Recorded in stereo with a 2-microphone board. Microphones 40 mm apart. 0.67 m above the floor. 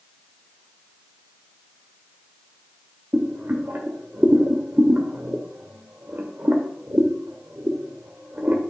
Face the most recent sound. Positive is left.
turn(degrees=-60)  # may be behind; listen again after turning